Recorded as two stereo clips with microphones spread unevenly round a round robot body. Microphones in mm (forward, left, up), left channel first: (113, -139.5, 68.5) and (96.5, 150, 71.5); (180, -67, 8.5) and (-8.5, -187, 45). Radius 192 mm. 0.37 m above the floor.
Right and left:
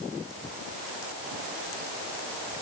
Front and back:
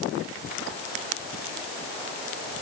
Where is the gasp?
I don't hear a gasp.